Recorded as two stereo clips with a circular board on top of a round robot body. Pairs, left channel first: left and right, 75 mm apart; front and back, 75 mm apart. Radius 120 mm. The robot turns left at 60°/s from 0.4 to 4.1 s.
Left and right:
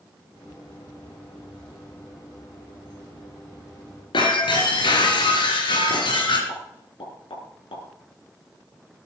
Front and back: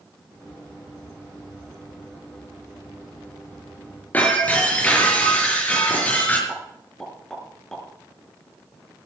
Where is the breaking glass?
70° left, 4 m.